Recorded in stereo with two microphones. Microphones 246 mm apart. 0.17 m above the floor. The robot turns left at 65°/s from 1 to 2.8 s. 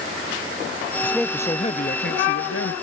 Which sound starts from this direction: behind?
A man speaking, at 1.0 s.